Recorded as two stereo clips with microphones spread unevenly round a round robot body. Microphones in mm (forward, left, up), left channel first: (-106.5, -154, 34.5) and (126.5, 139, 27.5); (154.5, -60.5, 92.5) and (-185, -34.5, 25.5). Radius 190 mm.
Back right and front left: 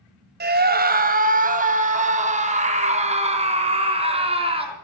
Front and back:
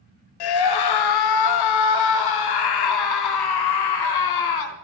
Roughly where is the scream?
Ahead.